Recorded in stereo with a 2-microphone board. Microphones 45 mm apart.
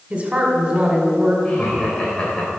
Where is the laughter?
20° left (ahead or behind), 2 m.